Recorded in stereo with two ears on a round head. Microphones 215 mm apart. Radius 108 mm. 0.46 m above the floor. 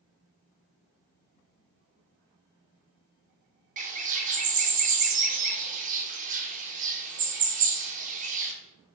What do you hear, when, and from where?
3.8 s a bird: 30° right (ahead or behind), 0.5 m